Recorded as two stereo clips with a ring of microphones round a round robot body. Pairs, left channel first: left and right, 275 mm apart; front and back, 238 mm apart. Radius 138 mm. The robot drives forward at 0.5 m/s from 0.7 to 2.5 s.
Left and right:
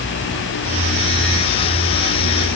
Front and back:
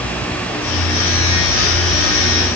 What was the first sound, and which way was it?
Only background noise.